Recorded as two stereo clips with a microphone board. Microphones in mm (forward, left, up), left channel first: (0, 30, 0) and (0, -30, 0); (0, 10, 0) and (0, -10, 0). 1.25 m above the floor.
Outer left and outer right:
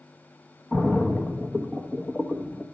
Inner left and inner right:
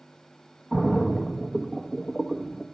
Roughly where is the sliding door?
No sliding door in this recording.